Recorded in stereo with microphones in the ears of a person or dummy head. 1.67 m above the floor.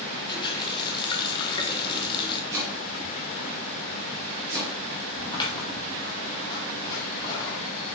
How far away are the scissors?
About 2.5 m.